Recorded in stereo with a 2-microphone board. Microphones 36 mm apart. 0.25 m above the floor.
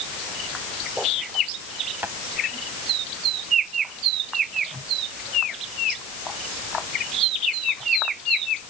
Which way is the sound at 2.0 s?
85° right.